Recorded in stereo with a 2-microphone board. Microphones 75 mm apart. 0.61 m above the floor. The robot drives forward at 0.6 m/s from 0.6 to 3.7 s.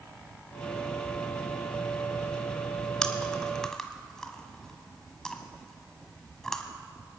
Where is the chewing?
10° left (ahead or behind), 0.9 m.